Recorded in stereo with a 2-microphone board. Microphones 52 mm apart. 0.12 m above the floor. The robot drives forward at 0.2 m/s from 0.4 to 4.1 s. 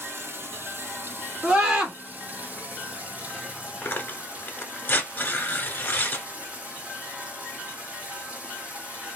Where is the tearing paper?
35° left (ahead or behind), 0.7 m.